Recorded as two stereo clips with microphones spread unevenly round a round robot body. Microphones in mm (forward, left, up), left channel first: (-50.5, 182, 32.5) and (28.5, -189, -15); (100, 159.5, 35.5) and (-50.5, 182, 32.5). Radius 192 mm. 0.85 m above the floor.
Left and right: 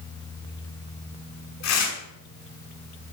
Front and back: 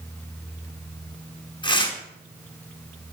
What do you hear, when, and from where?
1.6 s tearing paper: 50° left, 5.5 m